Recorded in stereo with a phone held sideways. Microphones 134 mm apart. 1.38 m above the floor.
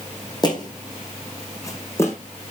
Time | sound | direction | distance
0.4 | footsteps | 35° left (ahead or behind) | 4 m